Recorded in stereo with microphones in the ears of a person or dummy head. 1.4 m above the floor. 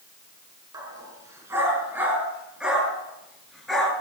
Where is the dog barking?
20° right (ahead or behind), 6 m; by 3.9 s 5° left (ahead or behind), 7.5 m.